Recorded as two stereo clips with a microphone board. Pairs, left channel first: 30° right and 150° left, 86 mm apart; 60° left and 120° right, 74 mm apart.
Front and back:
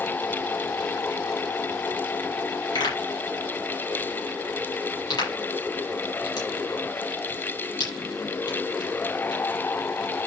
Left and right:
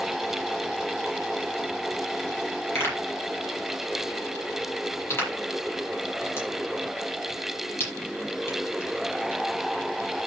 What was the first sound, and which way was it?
A pop, straight ahead.